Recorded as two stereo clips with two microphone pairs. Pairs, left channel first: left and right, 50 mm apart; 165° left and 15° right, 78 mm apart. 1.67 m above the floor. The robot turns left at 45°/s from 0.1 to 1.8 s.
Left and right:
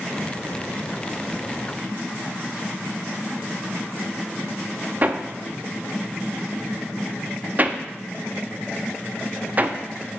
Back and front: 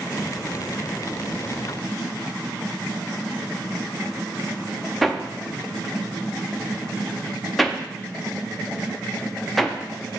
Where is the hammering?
105° right, 0.5 m.